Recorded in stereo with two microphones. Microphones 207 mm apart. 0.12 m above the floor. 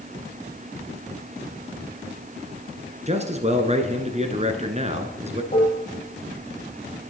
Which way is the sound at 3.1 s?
35° right (ahead or behind).